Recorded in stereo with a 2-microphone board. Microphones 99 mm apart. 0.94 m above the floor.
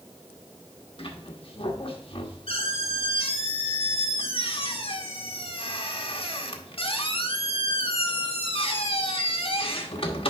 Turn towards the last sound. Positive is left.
turn(degrees=65)  # may be behind; listen again after turning